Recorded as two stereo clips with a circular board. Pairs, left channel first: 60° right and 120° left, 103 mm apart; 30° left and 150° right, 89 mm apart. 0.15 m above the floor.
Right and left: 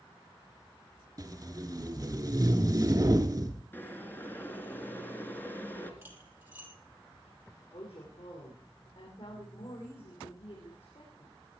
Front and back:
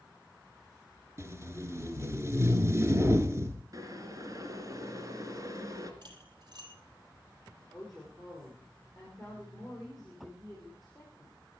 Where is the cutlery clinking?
175° right, 3.5 m.